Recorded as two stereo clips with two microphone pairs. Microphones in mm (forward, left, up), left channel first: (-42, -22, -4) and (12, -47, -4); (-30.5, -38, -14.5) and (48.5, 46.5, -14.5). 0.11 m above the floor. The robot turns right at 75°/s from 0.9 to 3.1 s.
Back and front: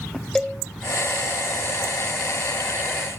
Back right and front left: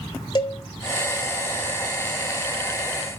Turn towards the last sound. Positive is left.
turn(degrees=35)